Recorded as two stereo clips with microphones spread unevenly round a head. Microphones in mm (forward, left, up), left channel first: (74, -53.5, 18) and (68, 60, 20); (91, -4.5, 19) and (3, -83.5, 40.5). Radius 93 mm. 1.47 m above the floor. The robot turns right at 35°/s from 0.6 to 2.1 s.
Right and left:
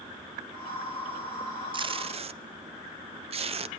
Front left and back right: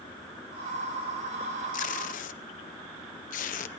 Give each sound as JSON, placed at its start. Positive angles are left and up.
{"t": 1.7, "sound": "tape being pulled", "azimuth_deg": 45, "distance_m": 0.5}